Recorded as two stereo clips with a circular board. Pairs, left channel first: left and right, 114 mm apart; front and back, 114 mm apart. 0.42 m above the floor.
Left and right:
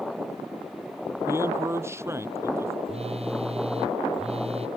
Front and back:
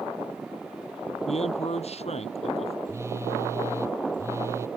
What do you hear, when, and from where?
1.3 s a man speaking: 25° right
2.9 s a phone buzzing: 115° right